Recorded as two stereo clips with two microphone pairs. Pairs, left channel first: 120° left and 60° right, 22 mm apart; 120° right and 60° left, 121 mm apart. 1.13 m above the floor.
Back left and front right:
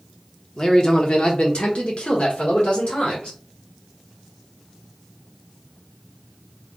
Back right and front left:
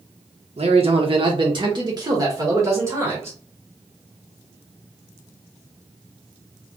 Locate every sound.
0.6 s a man speaking: 75° left, 1.0 m; by 3.4 s 125° left, 2 m